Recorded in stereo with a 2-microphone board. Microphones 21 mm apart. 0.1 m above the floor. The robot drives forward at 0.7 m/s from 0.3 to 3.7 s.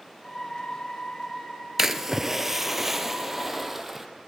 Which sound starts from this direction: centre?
A splash, at 1.8 s.